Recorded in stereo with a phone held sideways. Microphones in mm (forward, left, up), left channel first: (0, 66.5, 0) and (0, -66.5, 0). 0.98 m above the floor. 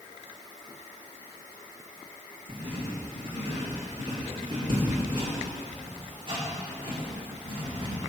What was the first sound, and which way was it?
Writing, 40° right (ahead or behind).